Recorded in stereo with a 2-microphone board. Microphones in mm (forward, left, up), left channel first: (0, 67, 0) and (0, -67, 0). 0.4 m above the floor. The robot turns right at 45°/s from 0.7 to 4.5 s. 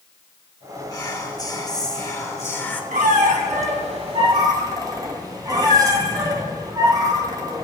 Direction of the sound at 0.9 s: 25° left (ahead or behind).